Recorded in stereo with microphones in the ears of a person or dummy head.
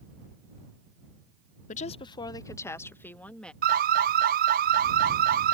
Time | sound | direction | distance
1.7 | a woman speaking | 35° left (ahead or behind) | ?
3.6 | an alarm | 45° right (ahead or behind) | ?